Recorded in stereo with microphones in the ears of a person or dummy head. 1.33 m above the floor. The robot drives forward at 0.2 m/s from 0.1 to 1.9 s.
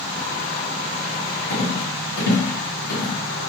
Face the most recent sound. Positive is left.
turn(degrees=70)  # may be behind; listen again after turning